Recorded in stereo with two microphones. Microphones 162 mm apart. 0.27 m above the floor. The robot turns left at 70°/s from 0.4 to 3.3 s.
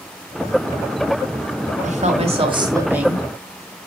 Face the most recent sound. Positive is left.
turn(degrees=170)